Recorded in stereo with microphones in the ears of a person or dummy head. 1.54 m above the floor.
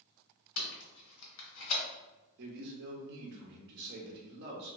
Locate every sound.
0.6 s tape being pulled: 70° left (ahead or behind), 1.2 m
2.4 s a man speaking: 55° right (ahead or behind), 0.8 m